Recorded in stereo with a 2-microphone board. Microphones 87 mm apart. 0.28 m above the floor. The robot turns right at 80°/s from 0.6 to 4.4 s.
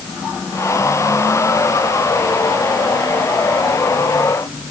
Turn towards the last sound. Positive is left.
No sound to turn to.